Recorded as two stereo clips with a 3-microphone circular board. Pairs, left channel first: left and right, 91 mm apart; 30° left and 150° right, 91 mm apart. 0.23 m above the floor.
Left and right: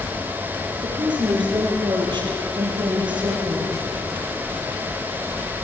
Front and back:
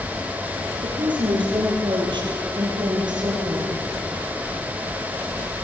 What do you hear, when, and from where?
0.8 s a woman speaking: 125° right, 8 m; by 3.7 s 115° right, 6.5 m